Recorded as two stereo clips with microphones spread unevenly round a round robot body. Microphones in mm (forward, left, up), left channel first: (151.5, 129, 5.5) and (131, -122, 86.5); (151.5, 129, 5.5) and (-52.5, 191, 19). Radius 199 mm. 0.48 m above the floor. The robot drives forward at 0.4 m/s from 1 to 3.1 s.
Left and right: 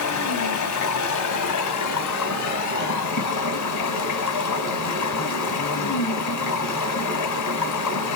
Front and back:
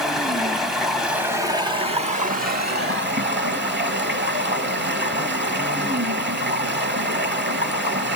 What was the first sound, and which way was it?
Running water, 75° left.